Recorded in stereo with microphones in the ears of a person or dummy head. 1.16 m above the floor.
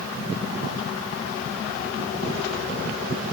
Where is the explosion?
I don't hear an explosion.